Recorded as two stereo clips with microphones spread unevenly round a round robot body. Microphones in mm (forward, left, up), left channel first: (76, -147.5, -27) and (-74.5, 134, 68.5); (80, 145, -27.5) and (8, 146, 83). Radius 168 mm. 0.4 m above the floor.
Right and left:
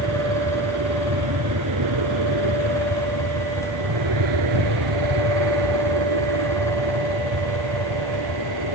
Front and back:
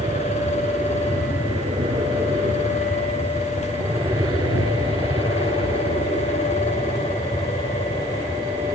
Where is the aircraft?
160° left; by 8.8 s 140° left.